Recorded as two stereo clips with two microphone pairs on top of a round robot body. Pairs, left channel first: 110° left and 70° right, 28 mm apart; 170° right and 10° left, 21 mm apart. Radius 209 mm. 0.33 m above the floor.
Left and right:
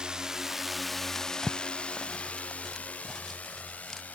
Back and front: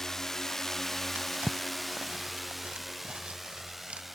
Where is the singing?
No singing in this recording.